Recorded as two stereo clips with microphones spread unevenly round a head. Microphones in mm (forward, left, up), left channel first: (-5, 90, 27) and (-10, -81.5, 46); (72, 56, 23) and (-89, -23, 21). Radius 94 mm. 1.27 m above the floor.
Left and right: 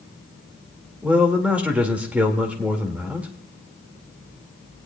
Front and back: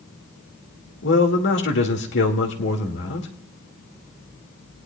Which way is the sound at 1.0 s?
10° right.